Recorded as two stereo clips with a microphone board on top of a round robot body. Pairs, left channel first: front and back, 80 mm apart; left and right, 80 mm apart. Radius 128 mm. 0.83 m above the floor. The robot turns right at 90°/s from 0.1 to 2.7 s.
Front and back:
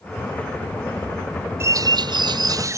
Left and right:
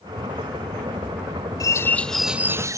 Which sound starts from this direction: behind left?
A bird, at 1.6 s.